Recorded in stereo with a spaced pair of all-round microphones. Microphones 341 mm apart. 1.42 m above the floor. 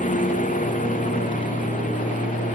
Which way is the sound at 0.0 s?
20° left (ahead or behind).